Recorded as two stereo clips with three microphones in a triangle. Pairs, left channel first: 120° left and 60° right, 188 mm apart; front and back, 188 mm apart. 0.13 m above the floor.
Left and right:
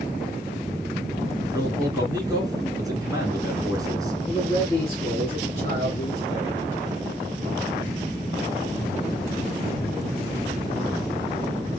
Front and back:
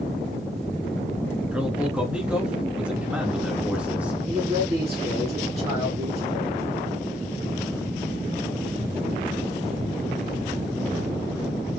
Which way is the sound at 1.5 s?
105° right.